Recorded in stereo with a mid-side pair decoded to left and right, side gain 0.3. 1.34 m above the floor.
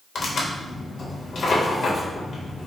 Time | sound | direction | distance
0.1 | tearing paper | 65° left | 1.2 m